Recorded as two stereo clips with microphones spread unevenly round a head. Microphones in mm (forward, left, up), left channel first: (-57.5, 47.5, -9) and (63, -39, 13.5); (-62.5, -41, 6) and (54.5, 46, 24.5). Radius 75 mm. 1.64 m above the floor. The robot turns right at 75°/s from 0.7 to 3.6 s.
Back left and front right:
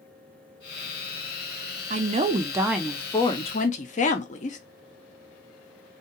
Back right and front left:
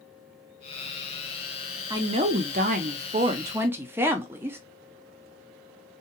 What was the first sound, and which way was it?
A woman speaking, 25° right.